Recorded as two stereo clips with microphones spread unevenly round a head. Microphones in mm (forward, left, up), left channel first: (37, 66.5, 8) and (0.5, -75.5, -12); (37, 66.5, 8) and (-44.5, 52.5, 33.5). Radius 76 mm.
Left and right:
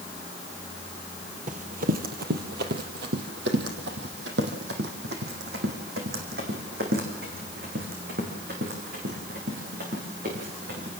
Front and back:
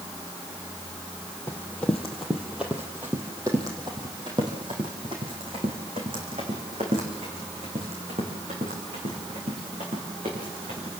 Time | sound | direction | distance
1.5 | running footsteps | 75° right | 2.5 m